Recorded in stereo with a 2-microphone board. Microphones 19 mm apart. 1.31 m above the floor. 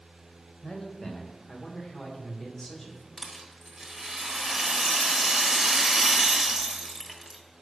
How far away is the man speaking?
About 1.4 m.